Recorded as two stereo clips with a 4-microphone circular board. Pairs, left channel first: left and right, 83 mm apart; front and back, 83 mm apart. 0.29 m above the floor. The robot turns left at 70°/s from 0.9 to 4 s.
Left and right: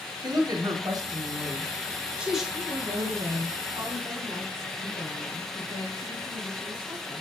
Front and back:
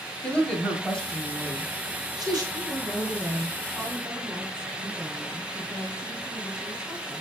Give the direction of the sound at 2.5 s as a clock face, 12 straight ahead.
12 o'clock.